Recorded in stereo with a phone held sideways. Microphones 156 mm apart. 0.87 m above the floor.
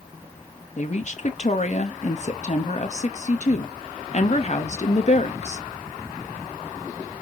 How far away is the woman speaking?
About 1.0 m.